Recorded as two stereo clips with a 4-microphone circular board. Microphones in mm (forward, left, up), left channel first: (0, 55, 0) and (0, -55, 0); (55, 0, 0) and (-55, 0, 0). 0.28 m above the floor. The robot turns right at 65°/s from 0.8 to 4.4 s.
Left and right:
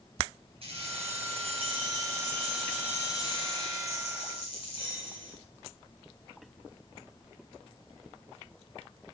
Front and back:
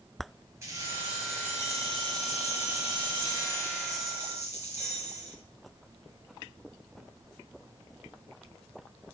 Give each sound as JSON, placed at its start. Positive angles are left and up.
{"t": 0.6, "sound": "keys jangling", "azimuth_deg": -115, "distance_m": 3.5}